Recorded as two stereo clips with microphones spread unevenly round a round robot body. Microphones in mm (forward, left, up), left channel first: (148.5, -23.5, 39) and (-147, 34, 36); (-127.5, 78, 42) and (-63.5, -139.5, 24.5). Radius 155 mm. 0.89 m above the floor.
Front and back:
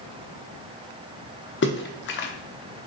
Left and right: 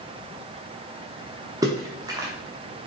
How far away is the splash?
About 0.8 m.